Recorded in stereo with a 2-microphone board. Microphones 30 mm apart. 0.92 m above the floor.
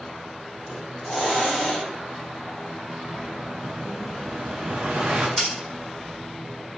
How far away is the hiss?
About 1.3 m.